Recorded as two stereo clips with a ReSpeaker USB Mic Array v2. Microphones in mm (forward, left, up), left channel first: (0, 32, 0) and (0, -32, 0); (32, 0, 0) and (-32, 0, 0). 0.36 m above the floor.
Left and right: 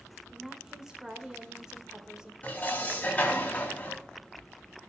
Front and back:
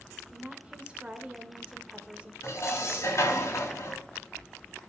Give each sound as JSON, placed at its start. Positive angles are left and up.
{"t": 0.3, "sound": "a woman speaking", "azimuth_deg": -145, "distance_m": 0.9}
{"t": 2.4, "sound": "dishes clattering", "azimuth_deg": 30, "distance_m": 1.8}